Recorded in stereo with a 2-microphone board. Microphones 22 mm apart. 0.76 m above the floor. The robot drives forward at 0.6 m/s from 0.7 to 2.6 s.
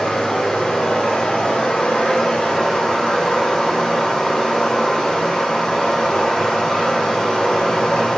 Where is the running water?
45° left (ahead or behind), 1.1 m; by 8.2 s 55° left (ahead or behind), 1.0 m.